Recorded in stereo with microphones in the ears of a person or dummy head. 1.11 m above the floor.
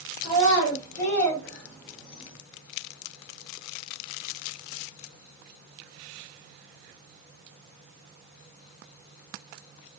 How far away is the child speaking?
About 2 m.